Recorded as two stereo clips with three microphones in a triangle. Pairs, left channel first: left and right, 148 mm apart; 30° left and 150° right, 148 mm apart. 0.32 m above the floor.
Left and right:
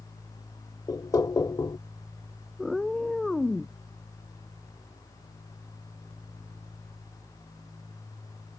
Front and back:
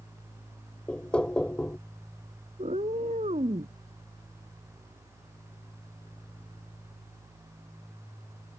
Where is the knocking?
100° left.